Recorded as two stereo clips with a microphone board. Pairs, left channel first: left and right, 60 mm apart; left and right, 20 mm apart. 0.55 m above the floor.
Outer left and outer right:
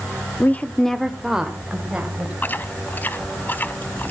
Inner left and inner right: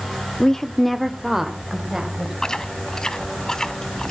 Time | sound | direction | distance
0.4 | a woman speaking | 35° left (ahead or behind) | 0.8 m
2.4 | chewing | 30° left (ahead or behind) | 0.6 m